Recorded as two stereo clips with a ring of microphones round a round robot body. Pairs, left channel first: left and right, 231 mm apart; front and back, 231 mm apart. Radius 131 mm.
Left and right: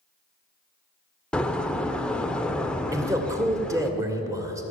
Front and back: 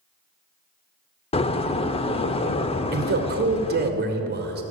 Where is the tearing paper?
I don't hear tearing paper.